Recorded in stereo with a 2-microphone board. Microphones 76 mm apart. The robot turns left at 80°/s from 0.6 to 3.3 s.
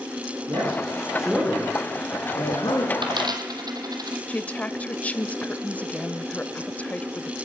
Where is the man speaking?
55° right (ahead or behind), 5.5 m; by 2.9 s 55° left (ahead or behind), 5.5 m.